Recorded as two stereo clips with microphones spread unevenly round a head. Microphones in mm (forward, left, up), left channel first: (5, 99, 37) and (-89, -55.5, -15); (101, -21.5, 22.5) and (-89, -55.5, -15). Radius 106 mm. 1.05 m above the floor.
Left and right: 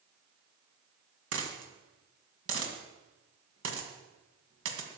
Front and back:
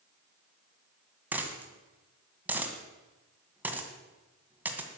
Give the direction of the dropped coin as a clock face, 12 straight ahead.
3 o'clock.